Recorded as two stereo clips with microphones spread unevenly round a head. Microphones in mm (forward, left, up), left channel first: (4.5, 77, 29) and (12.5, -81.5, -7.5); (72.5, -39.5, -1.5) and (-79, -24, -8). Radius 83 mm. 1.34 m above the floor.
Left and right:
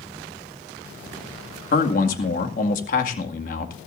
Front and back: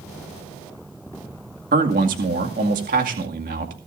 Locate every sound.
1.7 s a man speaking: 130° left, 2 m